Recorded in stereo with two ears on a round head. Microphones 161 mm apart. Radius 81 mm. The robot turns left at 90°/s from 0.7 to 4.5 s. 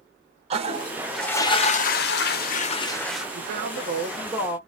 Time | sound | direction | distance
0.5 | a toilet flushing | 140° right | 0.7 m
3.4 | a man speaking | 70° right | 1.1 m